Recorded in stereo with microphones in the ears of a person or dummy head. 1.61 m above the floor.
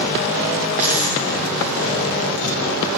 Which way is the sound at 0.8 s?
5° right (ahead or behind).